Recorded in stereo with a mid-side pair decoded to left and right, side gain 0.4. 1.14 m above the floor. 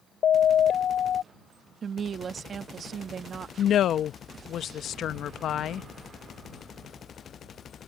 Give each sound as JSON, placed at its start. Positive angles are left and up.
{"t": 0.2, "sound": "a siren", "azimuth_deg": 60}
{"t": 1.8, "sound": "a woman speaking", "azimuth_deg": -55}
{"t": 3.6, "sound": "a woman speaking", "azimuth_deg": 65}